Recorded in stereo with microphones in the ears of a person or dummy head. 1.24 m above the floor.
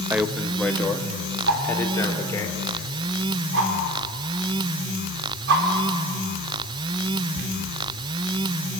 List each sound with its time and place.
0.1 s a man speaking: 10° right (ahead or behind), 1.0 m; by 2.5 s 20° left (ahead or behind), 3.5 m
1.5 s a whoosh: 75° right (ahead or behind), 4 m